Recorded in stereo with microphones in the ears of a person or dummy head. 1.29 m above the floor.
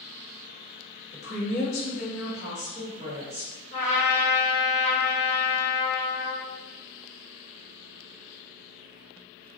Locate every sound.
1.1 s a woman speaking: 55° left (ahead or behind), 1.4 m; by 3.5 s 25° left (ahead or behind), 1.4 m
3.7 s a trumpet: 35° left (ahead or behind), 1.0 m